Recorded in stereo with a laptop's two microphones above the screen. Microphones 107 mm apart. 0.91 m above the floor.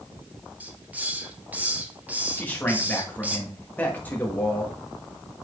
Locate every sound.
0.6 s a hiss: 15° right (ahead or behind), 0.8 m
2.4 s a man speaking: 15° left (ahead or behind), 1.4 m